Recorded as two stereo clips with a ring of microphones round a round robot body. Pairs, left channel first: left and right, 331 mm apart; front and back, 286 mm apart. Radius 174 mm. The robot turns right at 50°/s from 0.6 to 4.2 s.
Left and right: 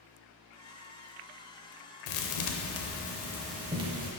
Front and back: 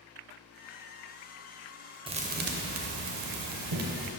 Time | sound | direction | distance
2.1 | a thud | 110° left | 0.6 m